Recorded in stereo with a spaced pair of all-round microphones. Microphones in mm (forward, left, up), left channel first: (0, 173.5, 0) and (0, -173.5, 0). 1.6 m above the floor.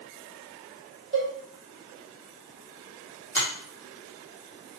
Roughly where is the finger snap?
Centre.